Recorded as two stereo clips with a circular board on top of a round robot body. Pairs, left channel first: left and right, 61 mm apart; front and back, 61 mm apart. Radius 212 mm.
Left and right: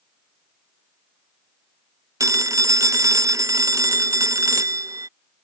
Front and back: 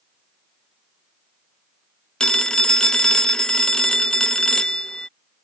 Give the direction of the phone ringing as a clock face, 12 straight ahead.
3 o'clock.